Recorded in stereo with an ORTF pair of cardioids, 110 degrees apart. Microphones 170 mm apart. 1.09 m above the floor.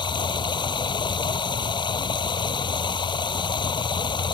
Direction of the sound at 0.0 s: 30° left.